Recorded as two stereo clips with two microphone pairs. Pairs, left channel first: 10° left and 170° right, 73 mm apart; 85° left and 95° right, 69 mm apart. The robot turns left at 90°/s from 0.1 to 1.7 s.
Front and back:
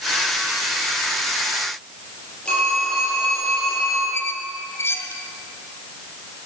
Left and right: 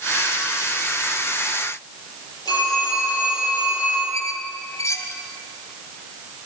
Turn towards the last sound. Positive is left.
turn(degrees=60)